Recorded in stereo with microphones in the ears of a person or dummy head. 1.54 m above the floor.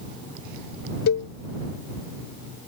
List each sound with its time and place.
1.1 s a cowbell: 55° left (ahead or behind)